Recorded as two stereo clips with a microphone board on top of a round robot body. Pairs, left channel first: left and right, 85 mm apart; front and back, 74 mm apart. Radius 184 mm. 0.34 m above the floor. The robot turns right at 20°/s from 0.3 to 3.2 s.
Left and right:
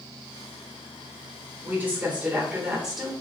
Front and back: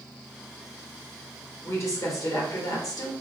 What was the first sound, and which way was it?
A woman speaking, 30° right.